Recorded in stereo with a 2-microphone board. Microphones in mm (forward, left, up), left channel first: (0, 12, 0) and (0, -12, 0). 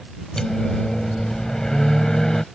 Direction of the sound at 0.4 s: 25° left (ahead or behind).